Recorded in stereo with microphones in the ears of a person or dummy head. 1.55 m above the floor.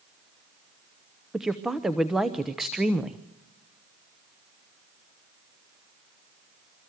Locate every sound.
1.3 s a woman speaking: centre (ahead or behind), 0.9 m